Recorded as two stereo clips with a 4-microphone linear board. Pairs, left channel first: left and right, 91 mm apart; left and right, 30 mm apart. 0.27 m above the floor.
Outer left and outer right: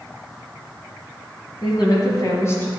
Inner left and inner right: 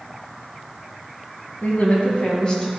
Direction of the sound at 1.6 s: 60° left (ahead or behind).